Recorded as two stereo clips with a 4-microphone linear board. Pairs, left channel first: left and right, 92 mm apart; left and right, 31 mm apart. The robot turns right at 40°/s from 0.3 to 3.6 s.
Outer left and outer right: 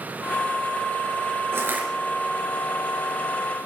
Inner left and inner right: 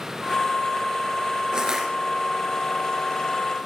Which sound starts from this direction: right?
Crushing, at 1.5 s.